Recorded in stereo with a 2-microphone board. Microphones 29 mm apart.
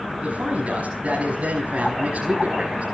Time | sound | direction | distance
0.2 | a man speaking | 60° right (ahead or behind) | 5.5 m